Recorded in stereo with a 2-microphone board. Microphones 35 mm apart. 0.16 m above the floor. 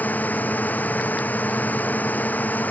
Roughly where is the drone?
Left.